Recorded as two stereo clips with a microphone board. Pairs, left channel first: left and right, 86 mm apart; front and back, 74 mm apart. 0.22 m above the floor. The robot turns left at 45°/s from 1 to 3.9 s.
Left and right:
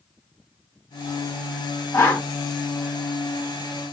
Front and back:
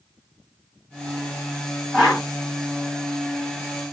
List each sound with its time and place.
1.9 s a whoosh: 100° left, 1.2 m; by 2.2 s 85° left, 1.2 m